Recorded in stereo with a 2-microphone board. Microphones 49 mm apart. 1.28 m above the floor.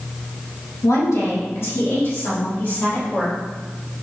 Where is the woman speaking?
85° left, 2.0 m; by 3.4 s 40° left (ahead or behind), 4.5 m.